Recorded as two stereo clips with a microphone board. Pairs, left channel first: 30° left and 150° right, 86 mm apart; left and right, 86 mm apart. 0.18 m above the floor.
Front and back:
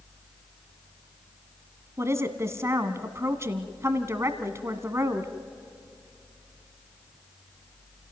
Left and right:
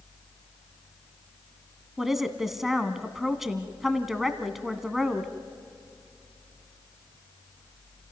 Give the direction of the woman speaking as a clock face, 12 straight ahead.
6 o'clock.